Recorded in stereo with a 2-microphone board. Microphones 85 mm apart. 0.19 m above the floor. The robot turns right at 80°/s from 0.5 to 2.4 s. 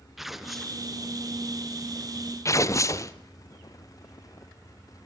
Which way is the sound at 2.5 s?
35° left (ahead or behind).